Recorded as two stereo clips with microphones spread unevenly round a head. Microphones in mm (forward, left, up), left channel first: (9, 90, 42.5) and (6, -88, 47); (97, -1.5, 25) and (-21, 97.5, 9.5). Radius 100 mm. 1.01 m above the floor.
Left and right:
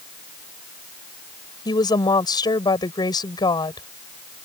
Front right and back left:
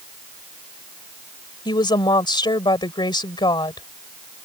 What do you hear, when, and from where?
1.6 s a woman speaking: 20° left